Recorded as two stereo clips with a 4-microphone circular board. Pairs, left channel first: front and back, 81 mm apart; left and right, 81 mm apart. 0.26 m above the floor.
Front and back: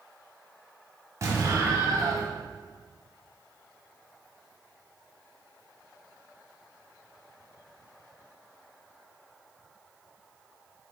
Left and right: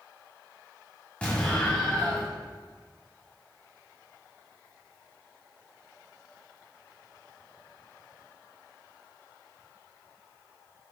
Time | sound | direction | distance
1.2 | an explosion | 160° left | 1.4 m